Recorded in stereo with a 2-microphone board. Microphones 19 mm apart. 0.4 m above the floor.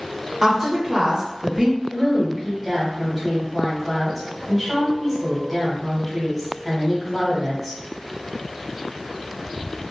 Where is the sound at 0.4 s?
20° right (ahead or behind), 1.0 m.